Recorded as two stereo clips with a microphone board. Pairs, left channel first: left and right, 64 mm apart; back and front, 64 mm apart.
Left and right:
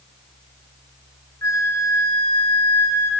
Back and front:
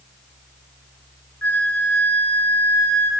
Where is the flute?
120° left, 0.6 m.